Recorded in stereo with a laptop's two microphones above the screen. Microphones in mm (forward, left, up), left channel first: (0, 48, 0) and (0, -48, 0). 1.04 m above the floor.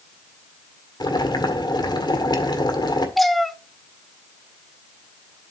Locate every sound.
1.0 s boiling: 55° left (ahead or behind), 1.7 m
3.2 s a cat meowing: centre (ahead or behind), 0.7 m